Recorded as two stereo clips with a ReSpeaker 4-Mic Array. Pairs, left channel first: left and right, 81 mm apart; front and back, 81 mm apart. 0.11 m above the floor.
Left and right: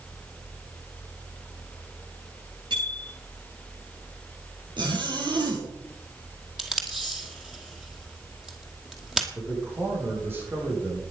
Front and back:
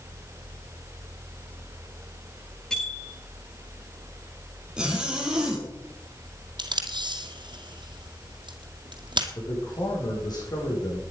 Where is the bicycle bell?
80° right, 9 m.